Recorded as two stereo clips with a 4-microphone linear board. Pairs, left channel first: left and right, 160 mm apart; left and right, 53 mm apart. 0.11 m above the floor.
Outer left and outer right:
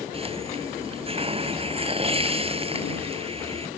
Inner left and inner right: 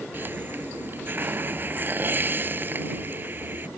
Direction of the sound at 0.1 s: 40° right (ahead or behind).